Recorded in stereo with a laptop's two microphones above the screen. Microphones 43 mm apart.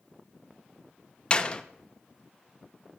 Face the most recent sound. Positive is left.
turn(degrees=30)  # may be behind; listen again after turning